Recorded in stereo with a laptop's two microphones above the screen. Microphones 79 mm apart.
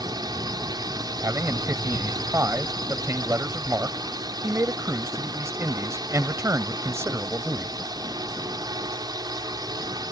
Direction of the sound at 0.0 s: 65° right (ahead or behind).